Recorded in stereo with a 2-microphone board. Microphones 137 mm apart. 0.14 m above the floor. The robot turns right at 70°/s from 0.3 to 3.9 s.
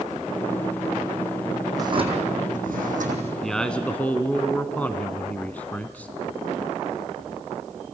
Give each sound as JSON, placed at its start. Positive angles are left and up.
{"t": 1.8, "sound": "a drawer", "azimuth_deg": -155, "distance_m": 3.0}
{"t": 3.4, "sound": "a man speaking", "side_deg": 0, "distance_m": 1.1}